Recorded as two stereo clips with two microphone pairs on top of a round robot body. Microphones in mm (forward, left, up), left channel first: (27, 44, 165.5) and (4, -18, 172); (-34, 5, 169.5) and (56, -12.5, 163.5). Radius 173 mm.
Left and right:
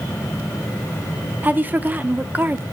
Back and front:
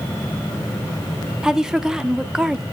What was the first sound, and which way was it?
A woman speaking, 75° right.